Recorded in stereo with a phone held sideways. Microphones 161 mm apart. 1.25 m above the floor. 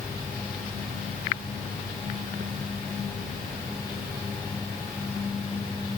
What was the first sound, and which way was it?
Only background noise.